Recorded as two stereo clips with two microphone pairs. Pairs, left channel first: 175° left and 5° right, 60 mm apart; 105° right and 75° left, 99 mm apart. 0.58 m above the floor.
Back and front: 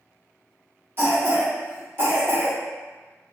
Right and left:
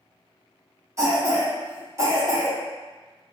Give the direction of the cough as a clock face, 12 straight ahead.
11 o'clock.